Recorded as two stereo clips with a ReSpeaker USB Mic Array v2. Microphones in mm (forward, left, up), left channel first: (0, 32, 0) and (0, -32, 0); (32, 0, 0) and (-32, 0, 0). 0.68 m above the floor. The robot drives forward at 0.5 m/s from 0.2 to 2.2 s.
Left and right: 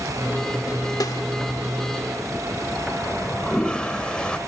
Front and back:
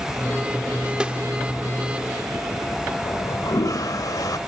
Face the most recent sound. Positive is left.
turn(degrees=15)